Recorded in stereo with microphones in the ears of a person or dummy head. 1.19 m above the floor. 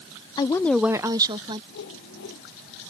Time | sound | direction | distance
0.4 | a woman speaking | 15° left (ahead or behind) | ?
1.7 | a whoosh | 65° left (ahead or behind) | ?